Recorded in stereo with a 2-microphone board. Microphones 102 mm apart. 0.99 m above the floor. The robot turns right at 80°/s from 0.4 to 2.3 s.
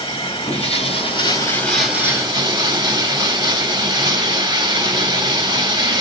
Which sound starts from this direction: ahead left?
Running water, at 0.0 s.